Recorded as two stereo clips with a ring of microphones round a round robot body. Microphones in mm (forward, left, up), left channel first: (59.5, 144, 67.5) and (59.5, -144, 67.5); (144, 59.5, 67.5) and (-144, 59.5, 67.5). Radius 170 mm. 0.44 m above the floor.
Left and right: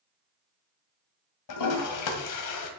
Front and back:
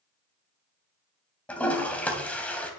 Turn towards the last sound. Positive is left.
turn(degrees=85)